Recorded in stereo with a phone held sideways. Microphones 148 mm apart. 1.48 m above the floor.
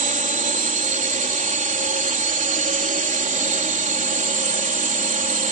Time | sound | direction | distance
0.0 | a drone | 65° right (ahead or behind) | ?